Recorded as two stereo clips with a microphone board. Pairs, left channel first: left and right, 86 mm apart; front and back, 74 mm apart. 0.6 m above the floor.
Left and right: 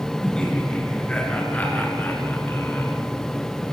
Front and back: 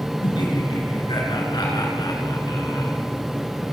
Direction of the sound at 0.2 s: 10° left.